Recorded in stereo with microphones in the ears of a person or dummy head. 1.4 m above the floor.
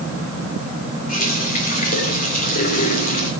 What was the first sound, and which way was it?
A running tap, 45° left (ahead or behind).